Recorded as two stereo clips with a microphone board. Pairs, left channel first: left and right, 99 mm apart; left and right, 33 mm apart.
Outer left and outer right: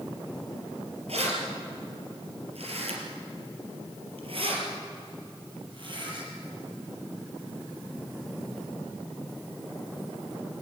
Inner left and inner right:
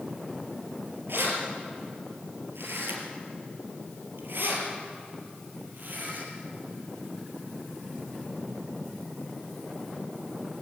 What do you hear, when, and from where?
1.1 s keys jangling: 85° right, 4.5 m; by 6.3 s 50° right (ahead or behind), 5.5 m